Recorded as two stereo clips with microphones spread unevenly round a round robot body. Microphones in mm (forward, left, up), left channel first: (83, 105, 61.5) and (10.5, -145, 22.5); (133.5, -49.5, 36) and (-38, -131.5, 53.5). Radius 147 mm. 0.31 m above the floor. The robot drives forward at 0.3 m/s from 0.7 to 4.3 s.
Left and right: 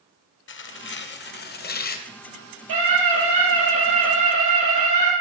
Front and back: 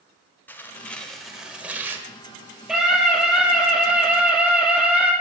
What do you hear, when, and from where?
0.5 s tearing paper: 90° left, 1.1 m; by 2.1 s 125° left, 1.1 m
2.7 s a scream: 70° right, 9 m